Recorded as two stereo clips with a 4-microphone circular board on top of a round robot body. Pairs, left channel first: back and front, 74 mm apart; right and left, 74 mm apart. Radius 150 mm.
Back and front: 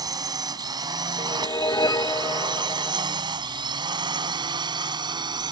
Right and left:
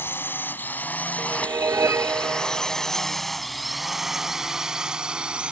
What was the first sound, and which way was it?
A drone, 30° right.